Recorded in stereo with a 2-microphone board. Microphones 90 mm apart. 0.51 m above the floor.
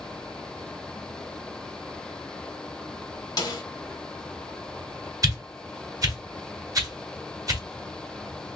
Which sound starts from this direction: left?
A snare drum, at 3.4 s.